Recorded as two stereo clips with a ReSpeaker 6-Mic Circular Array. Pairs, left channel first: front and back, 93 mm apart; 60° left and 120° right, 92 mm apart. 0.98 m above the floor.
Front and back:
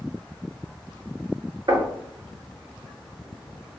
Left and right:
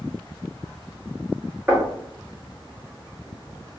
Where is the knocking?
175° left, 1.7 m.